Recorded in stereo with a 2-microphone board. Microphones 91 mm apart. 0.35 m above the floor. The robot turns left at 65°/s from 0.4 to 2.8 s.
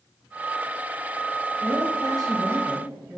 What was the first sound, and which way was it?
A woman speaking, 75° right.